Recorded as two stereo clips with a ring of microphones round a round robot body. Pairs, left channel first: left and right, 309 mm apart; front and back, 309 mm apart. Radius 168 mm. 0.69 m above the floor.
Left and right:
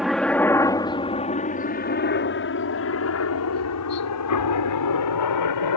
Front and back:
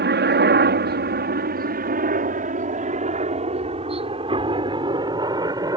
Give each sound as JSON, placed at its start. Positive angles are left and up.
{"t": 0.0, "sound": "a helicopter", "azimuth_deg": 180}